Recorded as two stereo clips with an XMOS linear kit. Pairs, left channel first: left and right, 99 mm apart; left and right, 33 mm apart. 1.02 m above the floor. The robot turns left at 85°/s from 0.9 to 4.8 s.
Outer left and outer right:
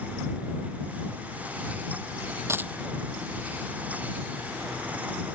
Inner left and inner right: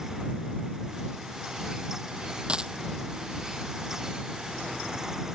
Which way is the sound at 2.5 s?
25° right (ahead or behind).